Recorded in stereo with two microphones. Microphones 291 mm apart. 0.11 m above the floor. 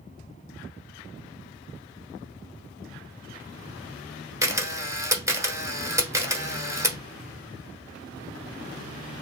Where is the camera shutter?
10° right (ahead or behind), 1.0 m.